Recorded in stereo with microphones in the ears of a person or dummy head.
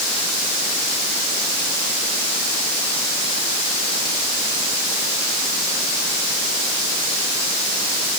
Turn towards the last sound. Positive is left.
No sound to turn to.